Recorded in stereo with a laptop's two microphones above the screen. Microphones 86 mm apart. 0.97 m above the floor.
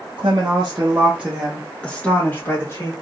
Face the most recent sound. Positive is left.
turn(degrees=35)  # may be behind; listen again after turning